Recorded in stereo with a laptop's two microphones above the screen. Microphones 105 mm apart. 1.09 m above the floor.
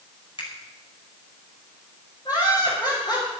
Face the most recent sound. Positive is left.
turn(degrees=40)  # may be behind; listen again after turning